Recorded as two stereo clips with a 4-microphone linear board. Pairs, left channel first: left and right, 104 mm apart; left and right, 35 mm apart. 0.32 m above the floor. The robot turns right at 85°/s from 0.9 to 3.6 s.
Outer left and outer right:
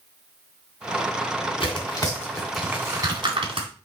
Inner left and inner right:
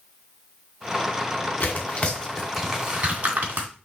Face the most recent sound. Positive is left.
turn(degrees=-65)  # may be behind; listen again after turning